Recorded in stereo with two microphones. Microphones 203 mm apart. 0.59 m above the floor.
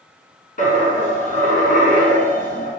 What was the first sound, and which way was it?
A dropped coin, 45° left (ahead or behind).